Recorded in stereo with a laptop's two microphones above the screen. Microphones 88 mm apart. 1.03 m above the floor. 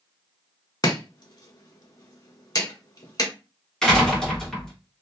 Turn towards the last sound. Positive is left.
turn(degrees=10)  # may be behind; listen again after turning